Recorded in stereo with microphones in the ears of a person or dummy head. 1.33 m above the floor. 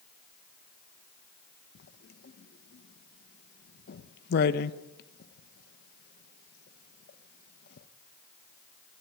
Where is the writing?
60° left (ahead or behind), 1.1 m.